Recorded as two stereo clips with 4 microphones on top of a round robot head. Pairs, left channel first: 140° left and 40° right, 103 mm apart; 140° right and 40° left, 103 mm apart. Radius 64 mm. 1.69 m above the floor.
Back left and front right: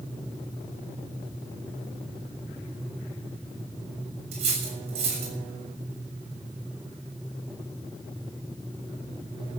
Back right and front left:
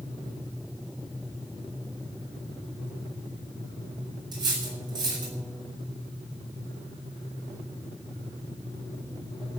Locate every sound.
4.3 s cutlery clinking: 10° right, 6.5 m